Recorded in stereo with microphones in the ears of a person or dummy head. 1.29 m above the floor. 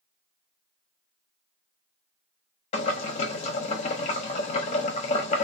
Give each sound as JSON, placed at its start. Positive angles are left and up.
{"t": 2.7, "sound": "boiling", "side_deg": 30, "distance_m": 0.6}